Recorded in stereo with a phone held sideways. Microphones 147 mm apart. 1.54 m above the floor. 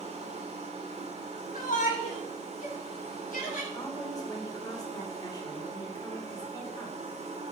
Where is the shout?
65° left (ahead or behind), 3.5 m.